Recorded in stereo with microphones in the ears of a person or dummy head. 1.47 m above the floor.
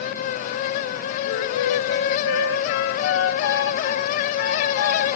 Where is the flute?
75° left (ahead or behind), 1.7 m.